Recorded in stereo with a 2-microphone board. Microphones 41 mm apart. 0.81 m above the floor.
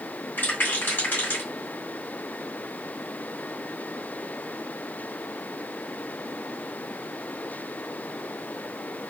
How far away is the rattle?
About 1.9 m.